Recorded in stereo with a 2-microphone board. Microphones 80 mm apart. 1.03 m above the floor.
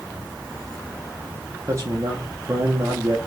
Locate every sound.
1.7 s a man speaking: 35° right (ahead or behind), 0.8 m